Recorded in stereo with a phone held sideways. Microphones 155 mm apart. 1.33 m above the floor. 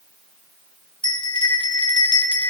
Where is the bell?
30° left (ahead or behind), 0.8 m.